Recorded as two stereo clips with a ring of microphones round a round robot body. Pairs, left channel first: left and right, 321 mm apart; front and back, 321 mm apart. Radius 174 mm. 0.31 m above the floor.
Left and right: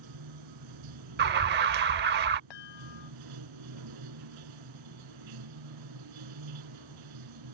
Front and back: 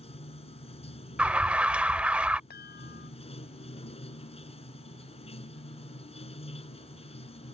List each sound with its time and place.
0.0 s running water: 70° right
1.2 s an alarm: 95° right
2.5 s a chime: 65° left